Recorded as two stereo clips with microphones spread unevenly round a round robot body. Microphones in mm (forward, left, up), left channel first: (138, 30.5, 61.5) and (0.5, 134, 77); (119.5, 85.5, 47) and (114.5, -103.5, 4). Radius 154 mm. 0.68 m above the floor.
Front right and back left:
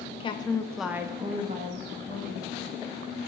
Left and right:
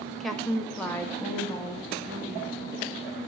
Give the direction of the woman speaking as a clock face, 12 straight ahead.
1 o'clock.